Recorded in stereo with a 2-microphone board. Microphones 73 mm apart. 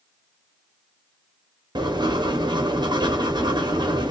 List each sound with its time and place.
1.8 s writing: 85° right, 0.8 m